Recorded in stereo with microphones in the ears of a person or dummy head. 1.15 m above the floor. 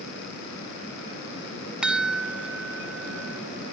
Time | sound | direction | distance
1.8 | a chime | 5° right (ahead or behind) | ?